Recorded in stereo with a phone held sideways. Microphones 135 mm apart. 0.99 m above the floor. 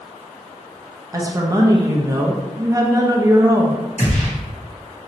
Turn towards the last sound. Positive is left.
turn(degrees=50)  # may be behind; listen again after turning